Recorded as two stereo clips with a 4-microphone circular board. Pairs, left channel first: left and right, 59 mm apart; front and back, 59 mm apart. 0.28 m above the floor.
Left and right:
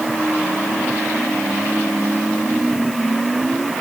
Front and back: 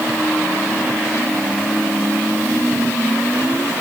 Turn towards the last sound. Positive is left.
No sound to turn to.